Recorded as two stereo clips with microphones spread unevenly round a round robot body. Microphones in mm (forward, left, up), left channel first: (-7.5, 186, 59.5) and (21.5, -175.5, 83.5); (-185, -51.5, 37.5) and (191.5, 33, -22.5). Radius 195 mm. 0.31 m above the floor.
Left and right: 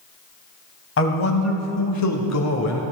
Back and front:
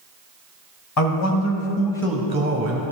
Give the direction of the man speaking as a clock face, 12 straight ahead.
7 o'clock.